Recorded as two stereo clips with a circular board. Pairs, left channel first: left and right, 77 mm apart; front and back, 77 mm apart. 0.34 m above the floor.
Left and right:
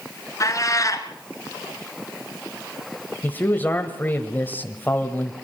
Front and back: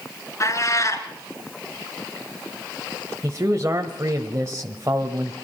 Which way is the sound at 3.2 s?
145° left.